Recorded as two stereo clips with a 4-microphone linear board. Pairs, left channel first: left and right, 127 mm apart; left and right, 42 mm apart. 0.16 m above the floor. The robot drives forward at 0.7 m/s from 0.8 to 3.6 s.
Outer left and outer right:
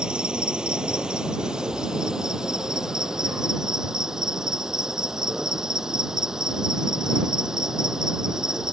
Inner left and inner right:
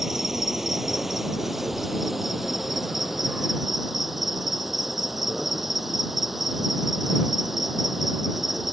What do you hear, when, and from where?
0.0 s an insect: 5° right (ahead or behind)